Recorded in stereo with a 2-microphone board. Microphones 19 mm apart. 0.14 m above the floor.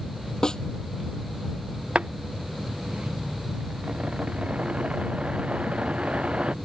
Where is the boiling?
85° right.